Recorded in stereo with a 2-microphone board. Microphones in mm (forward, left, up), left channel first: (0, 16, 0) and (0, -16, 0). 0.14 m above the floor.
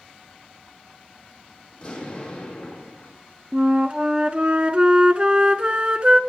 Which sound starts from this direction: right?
A flute, at 3.5 s.